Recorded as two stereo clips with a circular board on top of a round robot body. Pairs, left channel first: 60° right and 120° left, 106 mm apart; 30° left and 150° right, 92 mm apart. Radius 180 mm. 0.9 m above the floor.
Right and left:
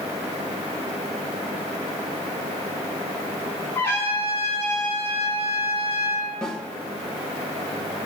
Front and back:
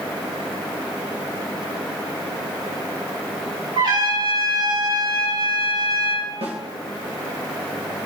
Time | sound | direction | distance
3.8 | a trumpet | 125° right | 4.5 m
6.4 | a snare drum | 140° right | 1.6 m